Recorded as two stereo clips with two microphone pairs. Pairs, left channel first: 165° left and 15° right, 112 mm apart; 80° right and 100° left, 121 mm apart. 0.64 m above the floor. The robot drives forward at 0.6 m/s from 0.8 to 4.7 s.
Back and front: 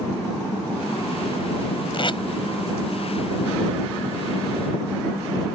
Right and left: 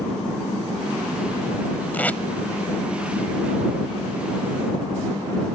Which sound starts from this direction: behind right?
Tape being pulled, at 1.9 s.